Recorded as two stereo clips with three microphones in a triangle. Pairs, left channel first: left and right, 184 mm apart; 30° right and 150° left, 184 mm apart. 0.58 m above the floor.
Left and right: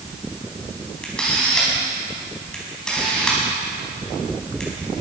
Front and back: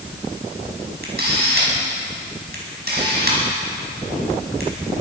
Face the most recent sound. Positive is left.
turn(degrees=175)